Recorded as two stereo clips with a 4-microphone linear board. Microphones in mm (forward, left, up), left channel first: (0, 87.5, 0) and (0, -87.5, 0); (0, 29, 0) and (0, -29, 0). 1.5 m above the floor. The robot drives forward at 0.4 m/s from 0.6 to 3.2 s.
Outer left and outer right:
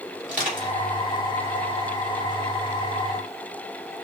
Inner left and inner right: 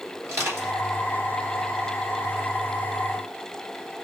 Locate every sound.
0.2 s crushing: 50° right (ahead or behind), 3 m; by 0.7 s 45° right (ahead or behind), 3 m